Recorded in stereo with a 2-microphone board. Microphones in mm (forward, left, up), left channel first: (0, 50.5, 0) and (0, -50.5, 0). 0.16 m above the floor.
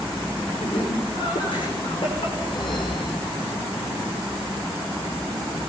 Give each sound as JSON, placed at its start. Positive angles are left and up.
{"t": 0.6, "sound": "laughter", "side_deg": 55, "distance_m": 9.5}
{"t": 2.4, "sound": "a whoosh", "side_deg": 50, "distance_m": 4.0}